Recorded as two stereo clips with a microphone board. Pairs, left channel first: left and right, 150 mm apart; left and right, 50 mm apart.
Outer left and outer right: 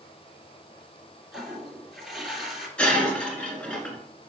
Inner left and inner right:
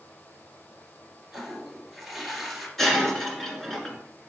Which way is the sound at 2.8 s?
5° left (ahead or behind).